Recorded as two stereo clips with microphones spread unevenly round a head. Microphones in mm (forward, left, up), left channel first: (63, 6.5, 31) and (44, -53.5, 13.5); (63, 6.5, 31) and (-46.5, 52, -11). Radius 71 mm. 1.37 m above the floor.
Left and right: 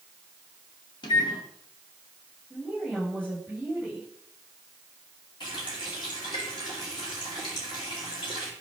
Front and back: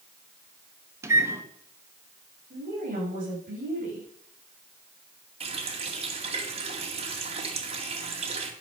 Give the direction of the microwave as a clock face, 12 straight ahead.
9 o'clock.